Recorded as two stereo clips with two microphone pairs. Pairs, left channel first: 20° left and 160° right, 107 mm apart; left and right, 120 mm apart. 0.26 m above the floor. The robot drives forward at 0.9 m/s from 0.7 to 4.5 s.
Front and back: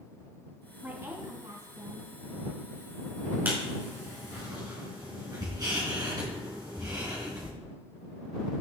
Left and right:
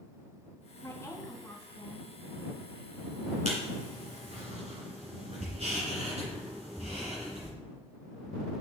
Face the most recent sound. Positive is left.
turn(degrees=-110)